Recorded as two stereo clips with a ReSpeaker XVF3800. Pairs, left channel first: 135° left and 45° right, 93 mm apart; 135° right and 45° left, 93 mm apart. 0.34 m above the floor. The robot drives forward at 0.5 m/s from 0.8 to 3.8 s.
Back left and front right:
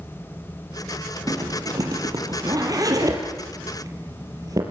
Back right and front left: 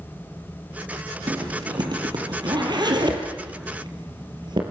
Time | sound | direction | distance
1.3 | a zipper | 5° left | 5.5 m